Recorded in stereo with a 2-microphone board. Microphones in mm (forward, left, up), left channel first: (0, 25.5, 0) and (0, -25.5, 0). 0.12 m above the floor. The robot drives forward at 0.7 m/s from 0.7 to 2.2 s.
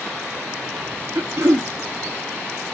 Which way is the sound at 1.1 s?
60° right (ahead or behind).